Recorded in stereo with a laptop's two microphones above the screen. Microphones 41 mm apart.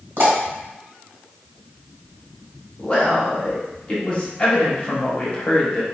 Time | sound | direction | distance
0.2 | a pop | 70° right (ahead or behind) | 1.3 m
2.8 | a man speaking | 30° left (ahead or behind) | 0.9 m